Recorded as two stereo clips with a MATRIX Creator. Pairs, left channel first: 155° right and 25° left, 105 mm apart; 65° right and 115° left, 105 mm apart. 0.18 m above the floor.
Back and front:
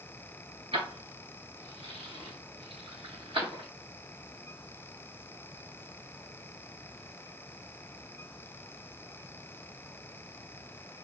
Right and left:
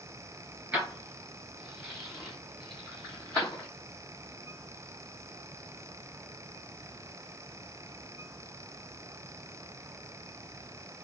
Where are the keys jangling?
35° left, 1.7 m; by 3.7 s 10° left, 3.5 m.